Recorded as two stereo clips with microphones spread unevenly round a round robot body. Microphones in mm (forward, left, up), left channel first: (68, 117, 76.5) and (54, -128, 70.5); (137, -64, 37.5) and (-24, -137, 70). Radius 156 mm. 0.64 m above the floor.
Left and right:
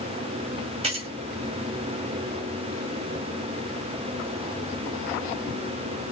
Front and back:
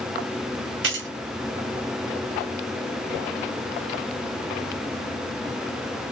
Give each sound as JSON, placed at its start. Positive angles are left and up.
{"t": 0.8, "sound": "keys jangling", "azimuth_deg": -160, "distance_m": 0.7}